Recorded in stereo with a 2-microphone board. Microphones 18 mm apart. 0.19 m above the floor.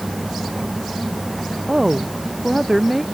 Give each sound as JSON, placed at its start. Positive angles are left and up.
{"t": 1.7, "sound": "a woman speaking", "side_deg": -10}